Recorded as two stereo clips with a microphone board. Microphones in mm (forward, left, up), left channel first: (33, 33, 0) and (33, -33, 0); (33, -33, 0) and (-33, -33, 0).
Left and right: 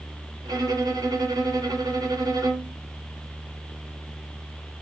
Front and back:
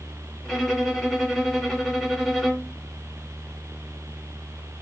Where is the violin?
90° right, 1.3 m.